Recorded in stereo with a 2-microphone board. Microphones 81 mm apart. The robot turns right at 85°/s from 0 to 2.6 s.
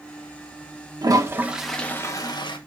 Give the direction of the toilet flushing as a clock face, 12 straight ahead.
2 o'clock.